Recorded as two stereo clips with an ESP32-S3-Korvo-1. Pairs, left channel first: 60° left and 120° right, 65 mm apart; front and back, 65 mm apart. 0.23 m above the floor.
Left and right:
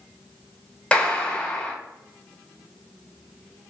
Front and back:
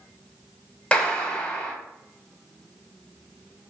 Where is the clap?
35° left, 0.8 m.